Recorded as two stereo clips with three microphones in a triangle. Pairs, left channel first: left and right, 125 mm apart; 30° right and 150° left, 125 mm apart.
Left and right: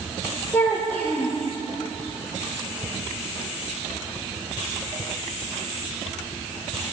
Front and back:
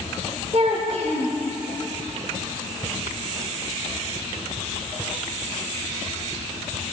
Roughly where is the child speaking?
Behind.